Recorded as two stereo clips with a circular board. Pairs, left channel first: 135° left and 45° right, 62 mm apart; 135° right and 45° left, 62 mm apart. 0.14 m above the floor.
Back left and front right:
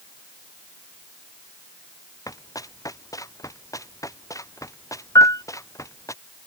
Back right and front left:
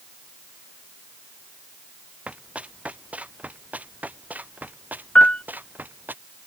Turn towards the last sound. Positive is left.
turn(degrees=150)